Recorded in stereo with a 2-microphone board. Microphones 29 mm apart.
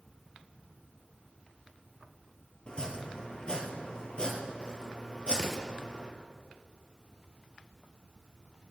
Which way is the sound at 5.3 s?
Centre (ahead or behind).